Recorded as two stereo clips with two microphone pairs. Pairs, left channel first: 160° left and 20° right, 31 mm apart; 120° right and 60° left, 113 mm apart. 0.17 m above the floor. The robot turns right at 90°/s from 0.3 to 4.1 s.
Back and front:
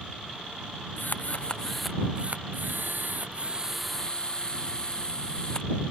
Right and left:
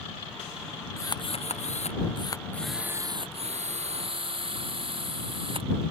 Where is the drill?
175° left; by 5.7 s 95° left.